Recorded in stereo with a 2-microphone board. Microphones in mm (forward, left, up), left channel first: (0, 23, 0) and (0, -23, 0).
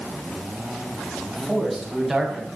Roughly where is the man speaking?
Centre.